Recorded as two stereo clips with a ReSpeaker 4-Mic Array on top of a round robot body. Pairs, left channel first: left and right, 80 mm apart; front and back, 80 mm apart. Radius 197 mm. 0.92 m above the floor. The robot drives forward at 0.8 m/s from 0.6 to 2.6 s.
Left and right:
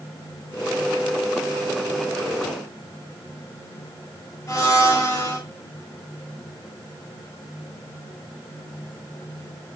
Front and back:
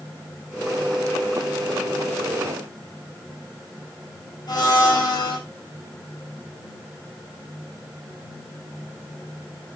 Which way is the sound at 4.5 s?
35° left.